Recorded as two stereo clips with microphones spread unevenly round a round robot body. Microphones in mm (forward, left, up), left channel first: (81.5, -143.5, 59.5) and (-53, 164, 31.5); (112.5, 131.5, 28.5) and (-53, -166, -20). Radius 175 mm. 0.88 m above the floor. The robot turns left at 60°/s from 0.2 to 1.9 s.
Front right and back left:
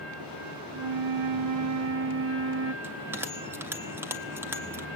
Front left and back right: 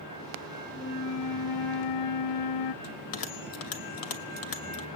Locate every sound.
0.7 s a flute: 135° left, 0.6 m; by 2.7 s 65° left, 0.6 m
2.8 s a bell: 30° left, 1.6 m